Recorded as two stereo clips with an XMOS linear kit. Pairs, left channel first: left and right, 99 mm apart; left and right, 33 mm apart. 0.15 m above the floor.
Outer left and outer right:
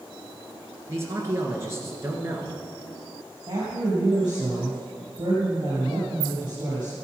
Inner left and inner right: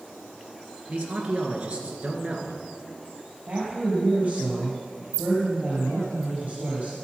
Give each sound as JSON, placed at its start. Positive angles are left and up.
{"t": 0.9, "sound": "a man speaking", "side_deg": -30, "distance_m": 1.7}
{"t": 3.5, "sound": "a woman speaking", "side_deg": -50, "distance_m": 3.5}